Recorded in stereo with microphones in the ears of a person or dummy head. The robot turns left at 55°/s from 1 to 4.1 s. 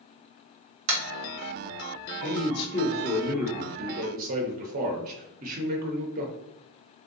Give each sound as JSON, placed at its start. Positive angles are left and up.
{"t": 0.9, "sound": "tapping", "side_deg": -75, "distance_m": 1.1}
{"t": 2.2, "sound": "a man speaking", "azimuth_deg": 60, "distance_m": 0.7}